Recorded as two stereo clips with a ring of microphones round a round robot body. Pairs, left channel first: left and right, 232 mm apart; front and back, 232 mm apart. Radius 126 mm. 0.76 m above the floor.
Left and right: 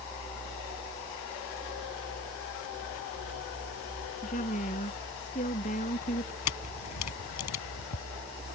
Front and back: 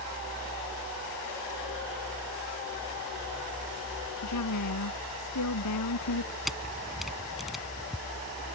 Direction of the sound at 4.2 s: 25° left.